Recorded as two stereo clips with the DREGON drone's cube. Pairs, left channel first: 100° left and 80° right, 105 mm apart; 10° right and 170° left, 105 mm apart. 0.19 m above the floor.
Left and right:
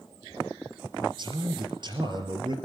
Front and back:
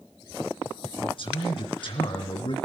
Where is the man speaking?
40° right, 3.5 m.